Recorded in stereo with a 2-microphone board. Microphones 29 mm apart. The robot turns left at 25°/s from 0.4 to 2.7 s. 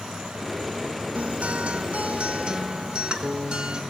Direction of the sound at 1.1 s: 100° right.